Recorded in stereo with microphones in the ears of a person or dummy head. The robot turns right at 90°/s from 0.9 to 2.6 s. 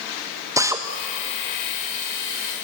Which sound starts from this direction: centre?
A drill, at 0.6 s.